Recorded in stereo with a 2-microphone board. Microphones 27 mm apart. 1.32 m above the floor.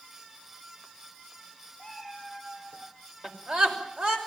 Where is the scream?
40° right (ahead or behind), 6 m.